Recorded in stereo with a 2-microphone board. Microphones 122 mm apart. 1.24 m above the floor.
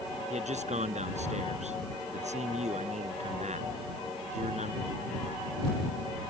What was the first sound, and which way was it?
A man speaking, 70° right (ahead or behind).